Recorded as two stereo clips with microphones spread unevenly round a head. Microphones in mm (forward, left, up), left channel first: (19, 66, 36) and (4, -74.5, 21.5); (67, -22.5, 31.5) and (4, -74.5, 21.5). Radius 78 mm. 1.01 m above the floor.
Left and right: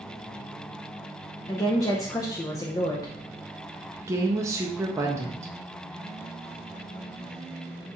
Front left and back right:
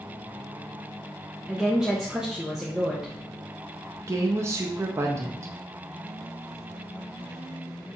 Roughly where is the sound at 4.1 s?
Behind right.